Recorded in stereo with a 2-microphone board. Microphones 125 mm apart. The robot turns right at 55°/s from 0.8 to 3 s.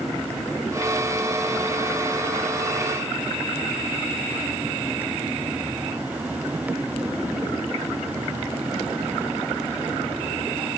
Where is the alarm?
I don't hear an alarm.